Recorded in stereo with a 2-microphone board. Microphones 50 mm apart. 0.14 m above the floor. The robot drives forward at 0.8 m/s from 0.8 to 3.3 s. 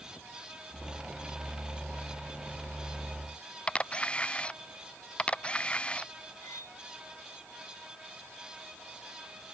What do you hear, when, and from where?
3.7 s a camera shutter: 20° left (ahead or behind)
6.4 s cutlery clinking: 80° left